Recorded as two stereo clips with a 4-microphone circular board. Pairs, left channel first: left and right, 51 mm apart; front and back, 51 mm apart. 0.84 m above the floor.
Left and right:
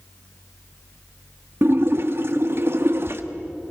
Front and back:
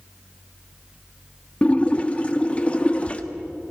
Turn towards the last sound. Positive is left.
turn(degrees=-60)